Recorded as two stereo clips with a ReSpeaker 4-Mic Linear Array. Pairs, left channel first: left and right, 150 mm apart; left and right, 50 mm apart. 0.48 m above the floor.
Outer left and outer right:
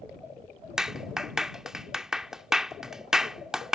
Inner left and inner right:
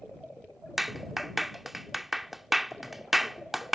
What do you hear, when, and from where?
0.8 s a clap: 5° right (ahead or behind)